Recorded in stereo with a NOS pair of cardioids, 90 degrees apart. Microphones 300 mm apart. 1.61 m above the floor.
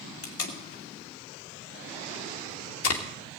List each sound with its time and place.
0.2 s tape being pulled: 50° left, 2.5 m